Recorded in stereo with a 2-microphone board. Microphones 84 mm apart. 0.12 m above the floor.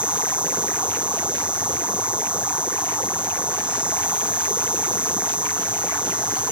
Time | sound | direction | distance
0.0 | an insect | 15° right (ahead or behind) | ?